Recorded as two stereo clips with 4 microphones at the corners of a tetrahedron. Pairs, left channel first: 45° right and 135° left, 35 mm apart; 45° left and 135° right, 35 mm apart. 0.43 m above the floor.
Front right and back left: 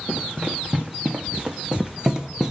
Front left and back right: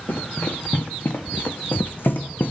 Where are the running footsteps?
75° left, 2.5 m; by 2.5 s 60° left, 1.1 m.